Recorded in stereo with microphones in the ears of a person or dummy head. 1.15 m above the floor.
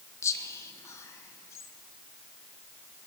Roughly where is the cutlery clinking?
No cutlery clinking in this recording.